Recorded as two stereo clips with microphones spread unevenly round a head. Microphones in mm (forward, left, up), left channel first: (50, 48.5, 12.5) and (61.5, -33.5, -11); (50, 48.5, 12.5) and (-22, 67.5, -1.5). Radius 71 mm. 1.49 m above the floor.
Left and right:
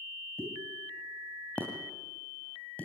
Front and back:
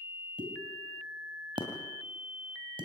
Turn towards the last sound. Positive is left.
turn(degrees=165)